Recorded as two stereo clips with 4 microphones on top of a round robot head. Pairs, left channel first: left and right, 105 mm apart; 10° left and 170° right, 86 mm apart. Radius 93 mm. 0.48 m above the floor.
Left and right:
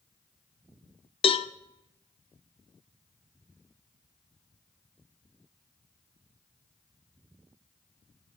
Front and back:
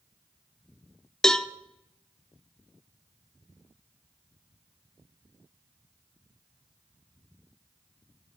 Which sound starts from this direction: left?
A cowbell, at 1.2 s.